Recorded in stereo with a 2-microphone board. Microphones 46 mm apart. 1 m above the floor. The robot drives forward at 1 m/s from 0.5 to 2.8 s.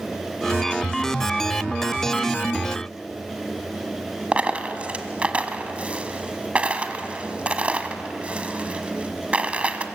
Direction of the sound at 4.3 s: 25° right (ahead or behind).